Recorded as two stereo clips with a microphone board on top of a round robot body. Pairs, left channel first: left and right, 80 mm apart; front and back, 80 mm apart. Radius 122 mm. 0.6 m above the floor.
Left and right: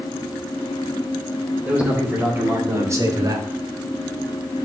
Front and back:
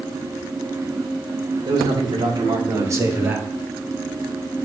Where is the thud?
No thud in this recording.